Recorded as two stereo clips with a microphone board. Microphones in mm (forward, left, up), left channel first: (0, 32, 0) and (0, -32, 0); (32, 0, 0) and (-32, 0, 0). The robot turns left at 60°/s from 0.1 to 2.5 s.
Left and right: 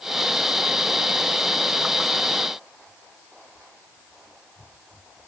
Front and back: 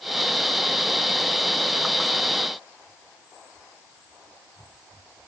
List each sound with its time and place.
Only background noise.